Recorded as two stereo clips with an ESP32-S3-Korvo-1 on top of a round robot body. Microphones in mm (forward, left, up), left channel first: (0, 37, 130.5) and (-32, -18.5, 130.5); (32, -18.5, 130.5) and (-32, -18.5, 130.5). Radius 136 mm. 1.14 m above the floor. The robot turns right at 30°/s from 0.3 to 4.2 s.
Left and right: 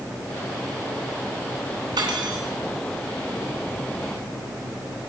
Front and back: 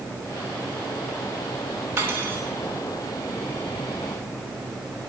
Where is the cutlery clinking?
115° right, 3 m; by 2.4 s 105° right, 3 m.